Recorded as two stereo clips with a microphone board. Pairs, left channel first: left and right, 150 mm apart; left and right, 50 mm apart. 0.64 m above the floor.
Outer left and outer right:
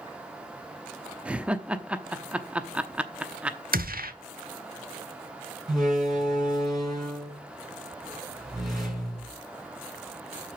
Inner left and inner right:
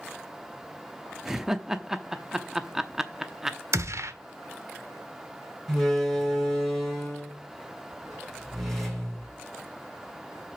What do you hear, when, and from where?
1.2 s laughter: 10° right (ahead or behind), 0.8 m
3.7 s a gunshot: 75° right (ahead or behind), 1.2 m
5.7 s a door slam: centre (ahead or behind), 4.5 m